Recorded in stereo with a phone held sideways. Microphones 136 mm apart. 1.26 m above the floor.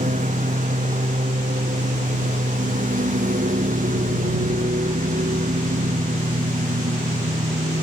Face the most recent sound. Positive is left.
turn(degrees=-80)